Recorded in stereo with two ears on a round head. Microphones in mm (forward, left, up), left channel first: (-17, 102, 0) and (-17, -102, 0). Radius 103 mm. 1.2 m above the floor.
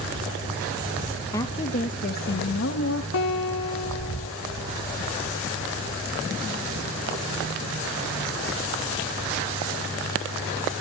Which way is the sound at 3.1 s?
65° left (ahead or behind).